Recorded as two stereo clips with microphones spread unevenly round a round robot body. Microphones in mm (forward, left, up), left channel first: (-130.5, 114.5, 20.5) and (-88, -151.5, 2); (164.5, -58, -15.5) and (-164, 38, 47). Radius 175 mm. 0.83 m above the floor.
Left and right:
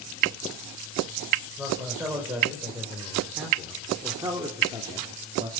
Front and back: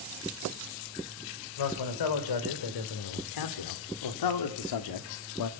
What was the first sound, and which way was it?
A man speaking, 5° left.